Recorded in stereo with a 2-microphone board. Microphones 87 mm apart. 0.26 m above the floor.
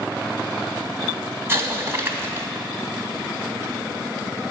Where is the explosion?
30° right (ahead or behind), 1.0 m.